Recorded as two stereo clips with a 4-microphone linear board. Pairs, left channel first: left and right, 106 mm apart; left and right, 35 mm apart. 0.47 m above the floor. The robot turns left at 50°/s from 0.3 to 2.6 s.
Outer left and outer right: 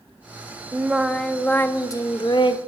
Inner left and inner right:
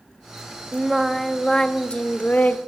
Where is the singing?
165° right, 0.6 m; by 2.6 s 105° left, 0.6 m.